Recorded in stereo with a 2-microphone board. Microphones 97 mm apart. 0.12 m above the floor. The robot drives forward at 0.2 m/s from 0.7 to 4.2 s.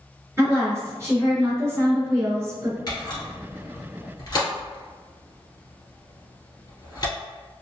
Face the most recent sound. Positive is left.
turn(degrees=40)  # may be behind; listen again after turning